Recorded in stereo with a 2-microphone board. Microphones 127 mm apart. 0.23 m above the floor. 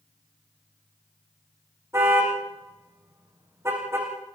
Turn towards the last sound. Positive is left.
turn(degrees=-20)  # may be behind; listen again after turning